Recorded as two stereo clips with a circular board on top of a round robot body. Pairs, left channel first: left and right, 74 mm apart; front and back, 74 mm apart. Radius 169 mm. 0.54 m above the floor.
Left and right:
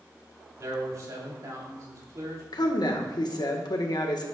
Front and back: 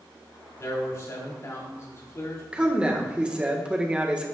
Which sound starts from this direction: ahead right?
A man speaking, at 0.6 s.